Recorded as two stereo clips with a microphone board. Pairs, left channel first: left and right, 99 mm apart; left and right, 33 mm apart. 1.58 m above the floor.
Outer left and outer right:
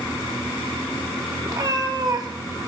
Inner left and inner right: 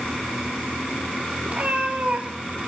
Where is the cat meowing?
40° right (ahead or behind), 1.2 m.